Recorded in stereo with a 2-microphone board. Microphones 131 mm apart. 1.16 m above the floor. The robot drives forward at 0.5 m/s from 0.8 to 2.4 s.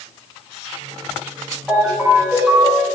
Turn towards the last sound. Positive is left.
turn(degrees=-5)  # may be behind; listen again after turning